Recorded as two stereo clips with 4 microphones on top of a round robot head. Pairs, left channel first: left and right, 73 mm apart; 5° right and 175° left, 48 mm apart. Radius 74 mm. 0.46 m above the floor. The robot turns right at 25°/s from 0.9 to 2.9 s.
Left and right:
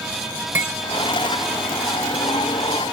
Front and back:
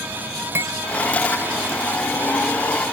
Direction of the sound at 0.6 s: 150° right.